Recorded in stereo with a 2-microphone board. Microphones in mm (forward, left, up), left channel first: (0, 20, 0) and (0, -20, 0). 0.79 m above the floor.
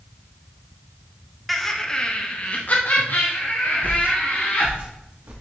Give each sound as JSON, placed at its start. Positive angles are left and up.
{"t": 1.5, "sound": "laughter", "side_deg": 0, "distance_m": 0.8}
{"t": 3.8, "sound": "footsteps", "side_deg": -50, "distance_m": 1.3}